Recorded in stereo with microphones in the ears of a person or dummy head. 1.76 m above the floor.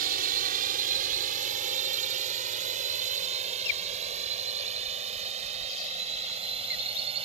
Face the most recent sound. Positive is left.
turn(degrees=-35)  # may be behind; listen again after turning